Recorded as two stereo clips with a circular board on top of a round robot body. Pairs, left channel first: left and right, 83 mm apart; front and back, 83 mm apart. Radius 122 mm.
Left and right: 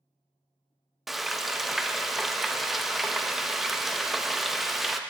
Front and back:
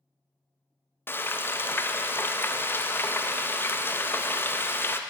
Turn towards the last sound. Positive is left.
turn(degrees=-5)